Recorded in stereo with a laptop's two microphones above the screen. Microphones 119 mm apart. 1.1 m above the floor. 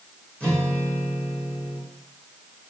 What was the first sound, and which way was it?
A guitar, 10° left (ahead or behind).